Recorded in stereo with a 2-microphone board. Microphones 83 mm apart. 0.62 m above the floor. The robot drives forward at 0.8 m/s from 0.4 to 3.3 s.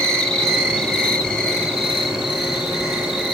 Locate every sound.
0.0 s an insect: 10° left (ahead or behind), 1.3 m; by 3.4 s 5° left (ahead or behind), 3.5 m